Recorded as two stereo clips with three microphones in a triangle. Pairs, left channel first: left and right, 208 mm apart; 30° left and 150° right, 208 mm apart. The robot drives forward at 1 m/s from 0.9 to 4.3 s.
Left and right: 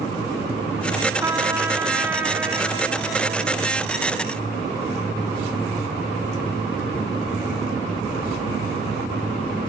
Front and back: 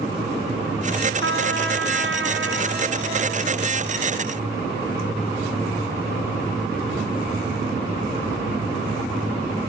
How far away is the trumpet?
About 1.7 m.